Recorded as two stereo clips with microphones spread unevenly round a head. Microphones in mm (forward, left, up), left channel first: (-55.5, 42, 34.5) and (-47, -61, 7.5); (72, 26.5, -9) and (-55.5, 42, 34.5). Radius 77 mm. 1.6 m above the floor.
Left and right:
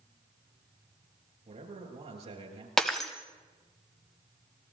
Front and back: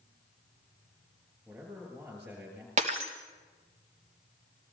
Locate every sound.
1.4 s a man speaking: 110° right, 9.5 m
2.8 s breaking glass: 175° left, 3 m